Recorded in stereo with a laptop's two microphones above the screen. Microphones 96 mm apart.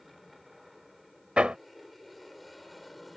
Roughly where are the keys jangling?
No keys jangling in this recording.